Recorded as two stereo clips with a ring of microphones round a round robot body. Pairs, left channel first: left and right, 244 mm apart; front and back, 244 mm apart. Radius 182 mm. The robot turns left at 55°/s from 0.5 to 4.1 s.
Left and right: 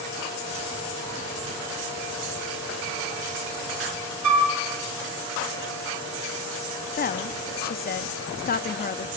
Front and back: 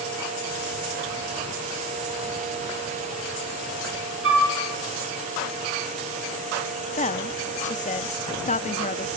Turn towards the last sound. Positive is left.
turn(degrees=50)